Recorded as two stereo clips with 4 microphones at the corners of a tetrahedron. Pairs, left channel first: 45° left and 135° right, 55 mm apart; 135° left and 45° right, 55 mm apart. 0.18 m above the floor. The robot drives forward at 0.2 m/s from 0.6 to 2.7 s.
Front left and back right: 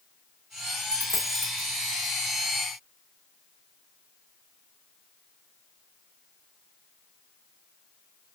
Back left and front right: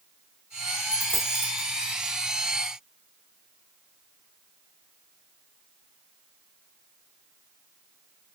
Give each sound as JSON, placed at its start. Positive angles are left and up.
{"t": 0.9, "sound": "a dropped coin", "azimuth_deg": -155, "distance_m": 1.7}